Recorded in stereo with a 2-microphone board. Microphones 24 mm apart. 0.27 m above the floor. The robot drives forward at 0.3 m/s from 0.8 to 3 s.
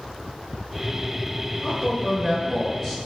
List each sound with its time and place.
1.6 s a man speaking: 10° left (ahead or behind), 1.2 m